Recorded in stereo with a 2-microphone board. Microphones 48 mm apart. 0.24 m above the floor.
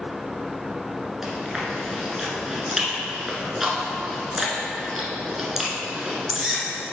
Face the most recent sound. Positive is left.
turn(degrees=-10)  # may be behind; listen again after turning